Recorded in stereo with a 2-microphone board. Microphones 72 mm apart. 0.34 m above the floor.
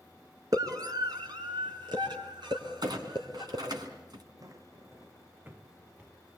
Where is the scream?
50° right (ahead or behind), 4 m; by 3.6 s 75° right (ahead or behind), 6.5 m.